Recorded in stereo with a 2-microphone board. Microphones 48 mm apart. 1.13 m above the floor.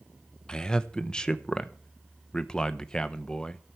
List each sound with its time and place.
0.5 s a man speaking: 20° left (ahead or behind), 0.9 m